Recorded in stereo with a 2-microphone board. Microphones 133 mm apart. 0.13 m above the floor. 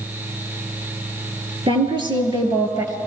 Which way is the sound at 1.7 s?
40° right (ahead or behind).